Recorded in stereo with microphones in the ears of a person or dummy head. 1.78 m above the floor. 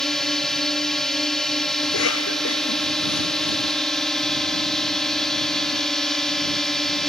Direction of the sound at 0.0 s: Centre (ahead or behind).